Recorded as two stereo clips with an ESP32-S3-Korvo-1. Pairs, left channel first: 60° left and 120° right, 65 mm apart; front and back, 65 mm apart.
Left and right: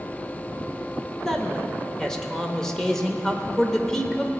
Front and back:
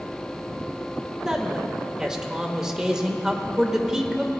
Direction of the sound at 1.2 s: 125° left.